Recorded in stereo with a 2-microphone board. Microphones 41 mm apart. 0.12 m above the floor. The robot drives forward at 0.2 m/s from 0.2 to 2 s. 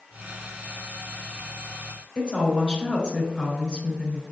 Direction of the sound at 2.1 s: 25° left (ahead or behind).